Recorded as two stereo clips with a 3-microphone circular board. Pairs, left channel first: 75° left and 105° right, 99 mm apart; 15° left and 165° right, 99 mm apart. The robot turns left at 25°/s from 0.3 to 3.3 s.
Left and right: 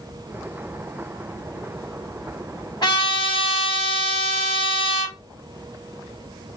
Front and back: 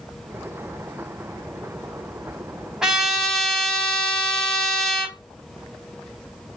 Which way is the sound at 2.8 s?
110° left.